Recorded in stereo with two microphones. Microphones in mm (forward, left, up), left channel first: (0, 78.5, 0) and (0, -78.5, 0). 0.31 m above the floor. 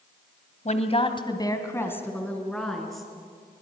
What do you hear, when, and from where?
0.7 s a woman speaking: 50° left (ahead or behind), 1.9 m; by 3.1 s centre (ahead or behind), 4.5 m